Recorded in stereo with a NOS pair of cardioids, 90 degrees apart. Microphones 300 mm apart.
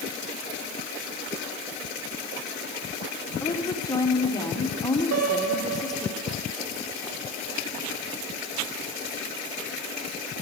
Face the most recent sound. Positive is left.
turn(degrees=-55)